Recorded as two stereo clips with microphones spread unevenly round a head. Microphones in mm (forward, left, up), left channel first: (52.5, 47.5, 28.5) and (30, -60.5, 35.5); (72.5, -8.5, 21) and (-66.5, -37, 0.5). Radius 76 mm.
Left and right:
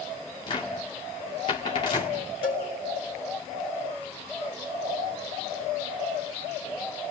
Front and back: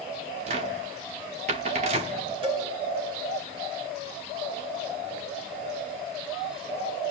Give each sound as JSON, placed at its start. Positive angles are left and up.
{"t": 0.5, "sound": "a cupboard door", "azimuth_deg": 140, "distance_m": 1.5}
{"t": 2.4, "sound": "a cowbell", "azimuth_deg": 130, "distance_m": 5.0}